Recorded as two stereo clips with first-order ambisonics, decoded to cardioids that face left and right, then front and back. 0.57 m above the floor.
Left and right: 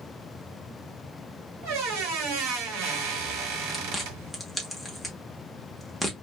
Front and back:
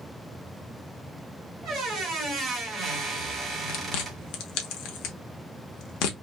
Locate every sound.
1.6 s a squeak: 105° right, 1.3 m
3.7 s chewing: straight ahead, 0.8 m